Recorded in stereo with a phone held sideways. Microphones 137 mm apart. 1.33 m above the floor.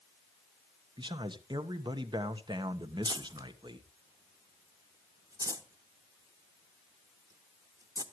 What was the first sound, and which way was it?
A man speaking, 35° right (ahead or behind).